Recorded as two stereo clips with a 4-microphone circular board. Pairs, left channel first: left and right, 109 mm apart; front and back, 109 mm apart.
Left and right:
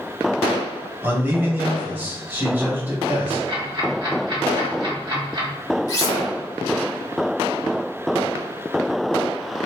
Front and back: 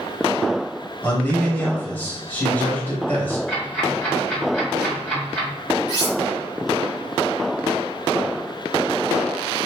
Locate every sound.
1.0 s a man speaking: 50° right, 1.2 m
3.5 s ticking: 75° right, 1.9 m
5.9 s cutlery clinking: 40° left, 0.9 m